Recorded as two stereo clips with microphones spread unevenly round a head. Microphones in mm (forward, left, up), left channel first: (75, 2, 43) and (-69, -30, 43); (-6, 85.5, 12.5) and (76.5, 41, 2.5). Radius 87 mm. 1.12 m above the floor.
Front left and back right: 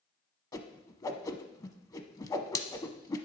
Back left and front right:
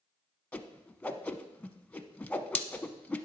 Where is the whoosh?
70° left, 0.9 m.